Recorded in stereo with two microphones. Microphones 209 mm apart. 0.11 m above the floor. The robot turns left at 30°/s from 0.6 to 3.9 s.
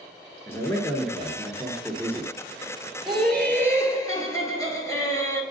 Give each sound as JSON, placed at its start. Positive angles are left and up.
{"t": 0.5, "sound": "a man speaking", "side_deg": 10, "distance_m": 1.4}
{"t": 3.1, "sound": "laughter", "side_deg": 0, "distance_m": 1.9}